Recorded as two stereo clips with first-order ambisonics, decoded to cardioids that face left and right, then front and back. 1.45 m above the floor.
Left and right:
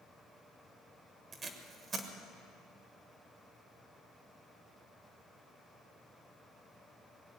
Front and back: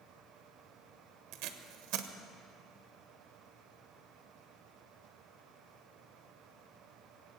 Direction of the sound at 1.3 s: 155° right.